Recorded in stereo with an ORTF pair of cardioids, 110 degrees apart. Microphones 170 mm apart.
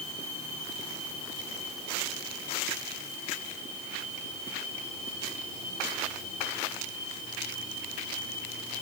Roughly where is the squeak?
I don't hear a squeak.